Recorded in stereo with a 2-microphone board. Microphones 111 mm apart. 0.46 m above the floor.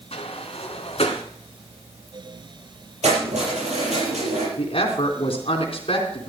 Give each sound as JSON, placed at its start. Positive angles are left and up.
{"t": 0.1, "sound": "a sliding door", "side_deg": 65, "distance_m": 1.9}
{"t": 3.0, "sound": "keys jangling", "side_deg": -85, "distance_m": 7.0}
{"t": 4.6, "sound": "a woman speaking", "side_deg": 55, "distance_m": 3.5}